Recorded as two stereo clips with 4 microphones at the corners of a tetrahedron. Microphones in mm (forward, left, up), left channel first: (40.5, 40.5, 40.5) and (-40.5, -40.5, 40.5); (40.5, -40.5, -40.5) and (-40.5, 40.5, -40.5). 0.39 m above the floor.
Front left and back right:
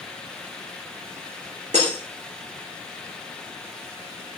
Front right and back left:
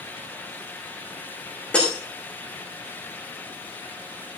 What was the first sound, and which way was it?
Breaking glass, 125° right.